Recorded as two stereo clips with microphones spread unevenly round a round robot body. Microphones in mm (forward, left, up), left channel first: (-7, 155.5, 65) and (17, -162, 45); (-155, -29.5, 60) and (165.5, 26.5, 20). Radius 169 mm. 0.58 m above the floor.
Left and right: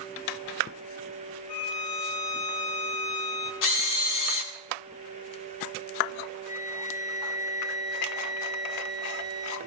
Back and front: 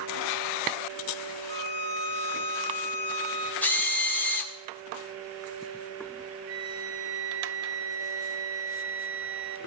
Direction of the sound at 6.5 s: 25° left.